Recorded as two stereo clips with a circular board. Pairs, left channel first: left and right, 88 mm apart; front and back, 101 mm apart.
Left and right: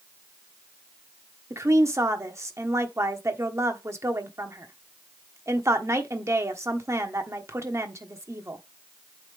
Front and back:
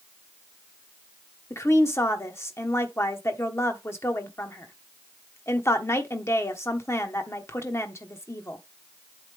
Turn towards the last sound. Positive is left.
turn(degrees=-50)